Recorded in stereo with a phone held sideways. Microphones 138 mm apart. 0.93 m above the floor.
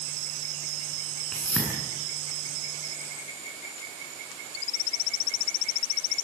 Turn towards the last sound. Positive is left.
turn(degrees=10)  # may be behind; listen again after turning